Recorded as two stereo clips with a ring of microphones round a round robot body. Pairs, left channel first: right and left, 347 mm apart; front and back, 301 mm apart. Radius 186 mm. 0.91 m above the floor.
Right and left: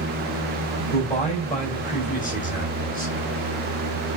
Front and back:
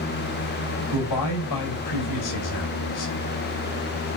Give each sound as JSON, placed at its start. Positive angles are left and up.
{"t": 0.9, "sound": "a man speaking", "azimuth_deg": -25, "distance_m": 5.0}